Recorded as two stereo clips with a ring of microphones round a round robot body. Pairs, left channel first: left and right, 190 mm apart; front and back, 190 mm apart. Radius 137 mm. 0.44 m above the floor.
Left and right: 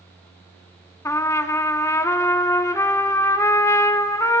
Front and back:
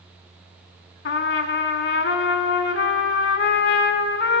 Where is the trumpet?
15° left, 0.7 m.